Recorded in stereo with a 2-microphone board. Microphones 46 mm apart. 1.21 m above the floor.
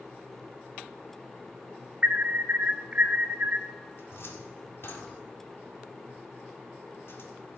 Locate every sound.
2.0 s an alarm: 30° right (ahead or behind), 0.7 m
4.0 s a cupboard door: 55° left (ahead or behind), 1.7 m